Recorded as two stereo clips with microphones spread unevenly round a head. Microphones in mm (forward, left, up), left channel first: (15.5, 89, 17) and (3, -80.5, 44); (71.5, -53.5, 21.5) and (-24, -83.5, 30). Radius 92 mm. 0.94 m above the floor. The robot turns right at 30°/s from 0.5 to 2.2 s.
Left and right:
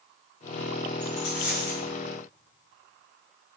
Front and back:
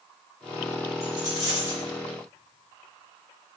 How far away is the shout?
No shout in this recording.